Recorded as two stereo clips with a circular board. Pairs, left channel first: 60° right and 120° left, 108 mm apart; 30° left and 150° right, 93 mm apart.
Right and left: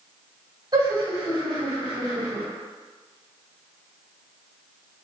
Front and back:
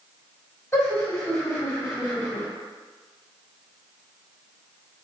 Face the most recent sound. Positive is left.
turn(degrees=80)